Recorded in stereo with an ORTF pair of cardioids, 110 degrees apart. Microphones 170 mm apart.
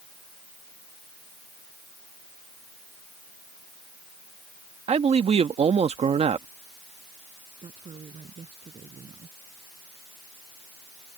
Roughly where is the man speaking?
Ahead right.